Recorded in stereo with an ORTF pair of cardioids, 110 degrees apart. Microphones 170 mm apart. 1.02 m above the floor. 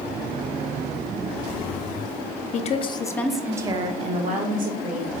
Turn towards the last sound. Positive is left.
turn(degrees=-65)